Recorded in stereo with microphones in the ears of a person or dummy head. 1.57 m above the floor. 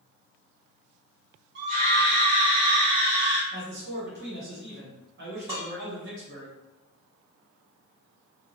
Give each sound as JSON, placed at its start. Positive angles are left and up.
{"t": 1.6, "sound": "a scream", "side_deg": -55, "distance_m": 0.7}
{"t": 3.5, "sound": "a man speaking", "side_deg": -55, "distance_m": 1.1}
{"t": 5.5, "sound": "dishes clattering", "side_deg": -25, "distance_m": 1.1}